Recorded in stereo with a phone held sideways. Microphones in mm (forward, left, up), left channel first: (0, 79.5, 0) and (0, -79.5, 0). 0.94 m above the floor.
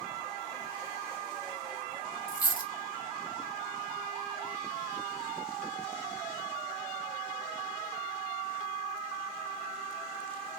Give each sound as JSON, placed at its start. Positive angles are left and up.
{"t": 2.3, "sound": "a dropped coin", "side_deg": 60, "distance_m": 0.6}